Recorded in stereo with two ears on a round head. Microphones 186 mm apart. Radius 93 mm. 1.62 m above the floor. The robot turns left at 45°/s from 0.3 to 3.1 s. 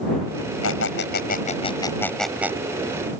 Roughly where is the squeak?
Left.